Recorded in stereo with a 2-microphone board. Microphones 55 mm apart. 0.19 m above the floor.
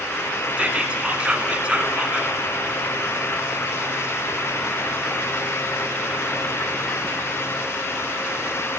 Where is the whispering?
20° right (ahead or behind), 2 m.